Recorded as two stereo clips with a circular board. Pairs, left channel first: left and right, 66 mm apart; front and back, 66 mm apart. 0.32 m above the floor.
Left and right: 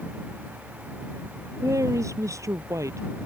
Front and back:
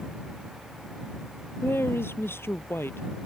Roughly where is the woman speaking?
Ahead right.